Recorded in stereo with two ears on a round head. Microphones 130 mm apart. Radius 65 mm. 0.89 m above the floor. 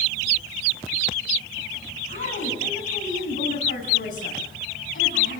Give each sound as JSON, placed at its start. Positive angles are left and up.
{"t": 2.1, "sound": "a woman speaking", "side_deg": 55, "distance_m": 6.5}